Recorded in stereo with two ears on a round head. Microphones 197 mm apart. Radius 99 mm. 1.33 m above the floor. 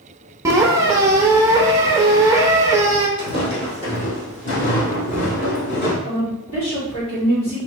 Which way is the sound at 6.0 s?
65° left (ahead or behind).